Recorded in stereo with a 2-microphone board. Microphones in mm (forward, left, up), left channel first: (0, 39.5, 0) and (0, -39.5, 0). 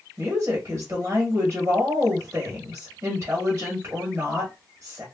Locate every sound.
0.2 s a woman speaking: 25° right (ahead or behind), 1.3 m